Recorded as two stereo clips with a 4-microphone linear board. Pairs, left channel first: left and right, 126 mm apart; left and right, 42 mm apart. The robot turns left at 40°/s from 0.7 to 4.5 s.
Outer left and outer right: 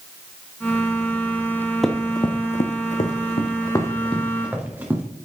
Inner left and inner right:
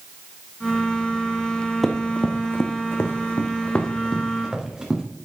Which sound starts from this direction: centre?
Running footsteps, at 1.8 s.